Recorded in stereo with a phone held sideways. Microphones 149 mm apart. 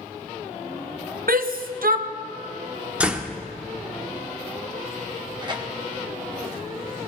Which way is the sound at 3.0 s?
10° right (ahead or behind).